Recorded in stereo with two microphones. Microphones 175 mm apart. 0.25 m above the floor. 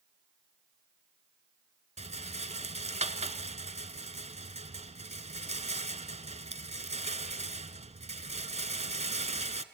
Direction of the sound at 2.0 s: 40° right (ahead or behind).